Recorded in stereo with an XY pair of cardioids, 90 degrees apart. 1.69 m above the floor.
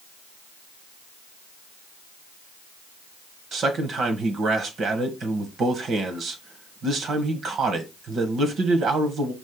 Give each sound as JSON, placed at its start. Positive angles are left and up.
{"t": 3.5, "sound": "a man speaking", "azimuth_deg": -70, "distance_m": 1.4}